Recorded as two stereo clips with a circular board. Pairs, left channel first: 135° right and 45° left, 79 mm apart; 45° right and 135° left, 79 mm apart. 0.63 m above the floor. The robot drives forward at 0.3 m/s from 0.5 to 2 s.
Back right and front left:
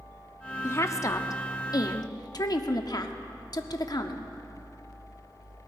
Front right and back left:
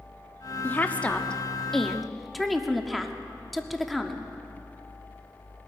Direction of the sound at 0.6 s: 95° right.